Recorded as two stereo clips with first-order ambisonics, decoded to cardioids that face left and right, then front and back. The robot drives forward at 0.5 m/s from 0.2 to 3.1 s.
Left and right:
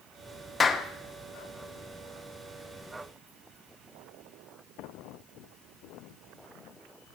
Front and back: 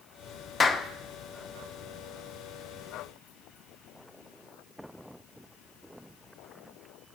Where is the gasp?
I don't hear a gasp.